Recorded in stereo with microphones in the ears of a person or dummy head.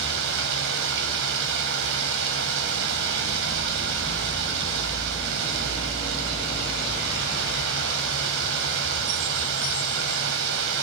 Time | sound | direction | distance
0.0 | running water | 70° right (ahead or behind) | 3 m